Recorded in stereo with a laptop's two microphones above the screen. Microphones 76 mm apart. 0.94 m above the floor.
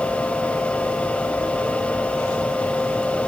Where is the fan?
20° left (ahead or behind), 1.6 m.